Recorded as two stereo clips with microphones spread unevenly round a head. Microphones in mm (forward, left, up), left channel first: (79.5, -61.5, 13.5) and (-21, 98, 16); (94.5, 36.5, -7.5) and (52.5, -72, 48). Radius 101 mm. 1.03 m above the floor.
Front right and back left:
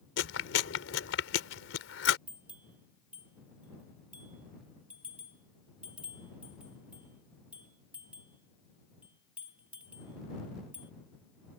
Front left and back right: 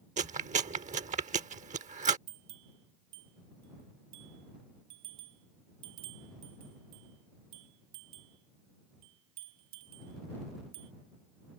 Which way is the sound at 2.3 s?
155° right.